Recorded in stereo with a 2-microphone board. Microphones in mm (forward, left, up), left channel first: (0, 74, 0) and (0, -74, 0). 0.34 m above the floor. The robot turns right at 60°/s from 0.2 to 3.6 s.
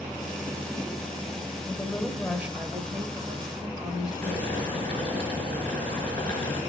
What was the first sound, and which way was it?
A woman speaking, 150° left.